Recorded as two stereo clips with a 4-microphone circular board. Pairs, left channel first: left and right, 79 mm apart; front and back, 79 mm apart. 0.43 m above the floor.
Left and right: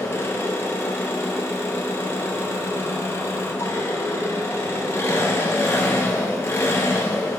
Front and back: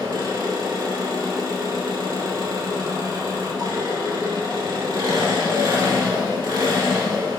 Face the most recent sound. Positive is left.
turn(degrees=150)